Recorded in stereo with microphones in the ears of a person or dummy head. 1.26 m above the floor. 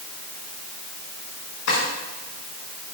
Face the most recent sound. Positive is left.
turn(degrees=75)  # may be behind; listen again after turning